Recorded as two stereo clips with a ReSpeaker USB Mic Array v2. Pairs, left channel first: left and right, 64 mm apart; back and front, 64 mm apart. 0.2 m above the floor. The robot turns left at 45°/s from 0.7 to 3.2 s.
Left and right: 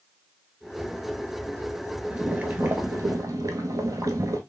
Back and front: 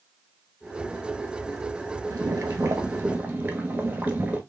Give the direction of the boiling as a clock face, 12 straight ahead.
1 o'clock.